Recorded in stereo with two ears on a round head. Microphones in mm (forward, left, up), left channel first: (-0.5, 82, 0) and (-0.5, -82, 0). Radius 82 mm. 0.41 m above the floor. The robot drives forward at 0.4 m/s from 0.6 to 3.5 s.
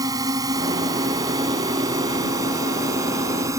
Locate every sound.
0.0 s a drone: 20° right (ahead or behind)